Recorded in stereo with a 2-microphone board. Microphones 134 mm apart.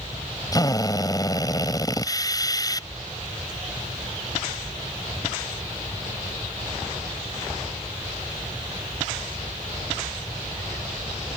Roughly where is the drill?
Left.